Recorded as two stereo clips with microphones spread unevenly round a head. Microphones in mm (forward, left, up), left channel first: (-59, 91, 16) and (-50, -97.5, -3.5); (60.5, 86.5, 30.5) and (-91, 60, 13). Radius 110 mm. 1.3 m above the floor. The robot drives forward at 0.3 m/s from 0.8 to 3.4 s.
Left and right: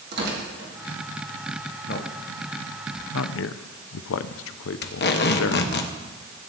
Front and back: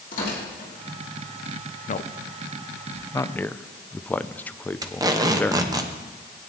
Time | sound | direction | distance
0.1 | tearing paper | 45° right | 2 m
1.9 | a man speaking | 45° left | 0.6 m
4.8 | tape being pulled | 120° left | 1.0 m